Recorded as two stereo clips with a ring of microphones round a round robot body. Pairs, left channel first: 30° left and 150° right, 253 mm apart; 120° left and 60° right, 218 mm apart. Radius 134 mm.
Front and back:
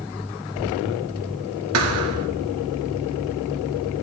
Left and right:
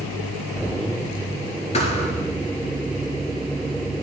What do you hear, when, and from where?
1.7 s a thud: 175° right, 1.5 m